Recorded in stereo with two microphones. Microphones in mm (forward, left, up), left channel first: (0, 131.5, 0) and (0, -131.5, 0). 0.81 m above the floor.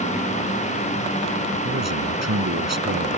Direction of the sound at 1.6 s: 80° right.